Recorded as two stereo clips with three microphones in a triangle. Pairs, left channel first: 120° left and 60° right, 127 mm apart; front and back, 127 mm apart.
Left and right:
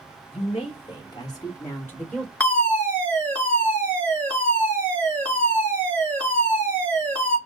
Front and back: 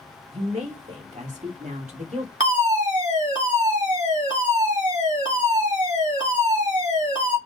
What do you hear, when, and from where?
0.3 s a woman speaking: 155° left, 2.0 m; by 2.3 s 155° right, 1.6 m
2.4 s a fire alarm: 170° right, 2.5 m